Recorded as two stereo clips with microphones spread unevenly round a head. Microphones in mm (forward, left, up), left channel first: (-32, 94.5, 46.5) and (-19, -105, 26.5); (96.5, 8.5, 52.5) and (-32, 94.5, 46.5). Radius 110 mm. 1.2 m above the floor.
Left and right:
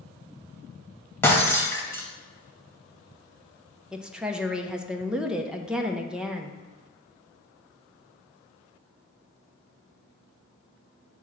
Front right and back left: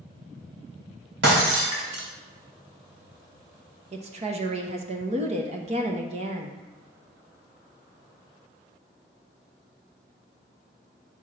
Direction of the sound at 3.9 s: 170° right.